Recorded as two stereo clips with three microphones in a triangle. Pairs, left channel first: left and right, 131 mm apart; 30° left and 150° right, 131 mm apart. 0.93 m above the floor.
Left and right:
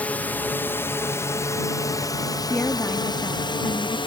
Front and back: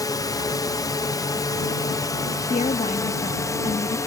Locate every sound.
0.0 s a drone: 25° left; by 4.1 s 80° left
2.5 s a woman speaking: 15° left